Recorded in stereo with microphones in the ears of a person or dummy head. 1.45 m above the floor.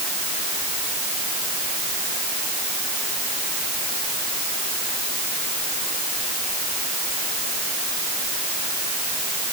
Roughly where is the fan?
No fan in this recording.